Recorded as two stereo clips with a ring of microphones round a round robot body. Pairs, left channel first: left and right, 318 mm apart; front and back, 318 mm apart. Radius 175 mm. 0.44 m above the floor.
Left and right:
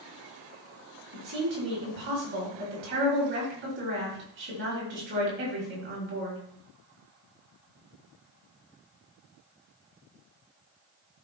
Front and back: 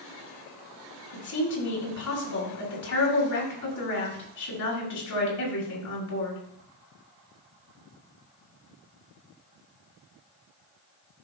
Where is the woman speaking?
30° right, 5.5 m.